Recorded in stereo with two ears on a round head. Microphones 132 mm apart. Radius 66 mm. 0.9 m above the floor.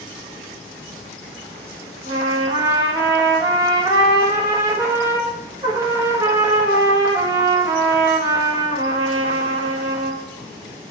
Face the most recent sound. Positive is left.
turn(degrees=-20)  # may be behind; listen again after turning